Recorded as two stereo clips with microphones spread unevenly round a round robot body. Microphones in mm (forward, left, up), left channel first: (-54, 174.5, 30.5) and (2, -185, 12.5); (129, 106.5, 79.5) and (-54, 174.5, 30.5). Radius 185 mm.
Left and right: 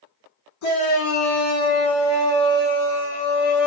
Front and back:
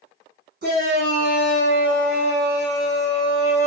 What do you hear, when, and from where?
0.6 s a shout: 140° left, 2 m; by 3.7 s straight behind, 1.1 m